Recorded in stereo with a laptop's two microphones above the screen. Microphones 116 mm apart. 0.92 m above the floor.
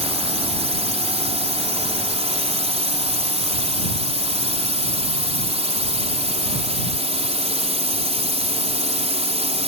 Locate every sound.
0.0 s a drone: 60° right (ahead or behind)